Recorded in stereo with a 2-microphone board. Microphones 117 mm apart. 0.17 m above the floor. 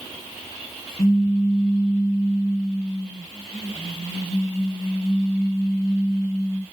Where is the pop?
60° left (ahead or behind), 3 m.